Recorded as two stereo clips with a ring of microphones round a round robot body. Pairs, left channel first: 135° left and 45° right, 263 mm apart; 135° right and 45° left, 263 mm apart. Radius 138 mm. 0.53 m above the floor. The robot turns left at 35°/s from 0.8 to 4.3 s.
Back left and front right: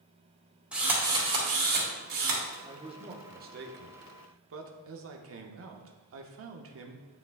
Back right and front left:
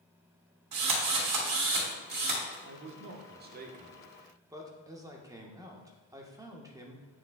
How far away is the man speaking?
About 1.0 m.